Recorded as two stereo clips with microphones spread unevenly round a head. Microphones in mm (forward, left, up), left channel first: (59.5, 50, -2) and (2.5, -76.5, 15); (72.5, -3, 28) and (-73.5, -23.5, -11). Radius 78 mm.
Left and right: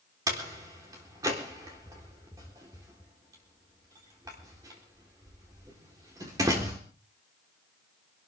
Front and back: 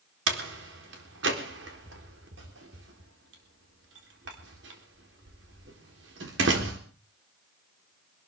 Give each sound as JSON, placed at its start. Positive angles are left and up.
{"t": 0.3, "sound": "a door slam", "azimuth_deg": 175, "distance_m": 4.0}